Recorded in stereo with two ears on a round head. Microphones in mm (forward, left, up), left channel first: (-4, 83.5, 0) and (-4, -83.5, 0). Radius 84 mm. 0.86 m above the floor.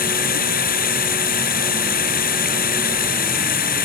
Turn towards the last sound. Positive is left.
turn(degrees=50)  # may be behind; listen again after turning